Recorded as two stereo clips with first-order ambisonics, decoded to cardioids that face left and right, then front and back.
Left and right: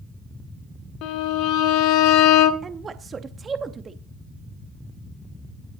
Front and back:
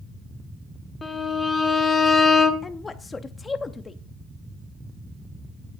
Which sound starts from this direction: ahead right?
A woman speaking, at 2.6 s.